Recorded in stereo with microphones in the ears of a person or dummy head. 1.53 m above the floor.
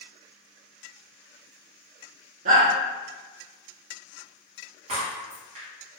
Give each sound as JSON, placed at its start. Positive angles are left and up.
{"t": 2.5, "sound": "a shout", "side_deg": -45, "distance_m": 1.0}
{"t": 4.9, "sound": "breaking glass", "side_deg": -45, "distance_m": 1.5}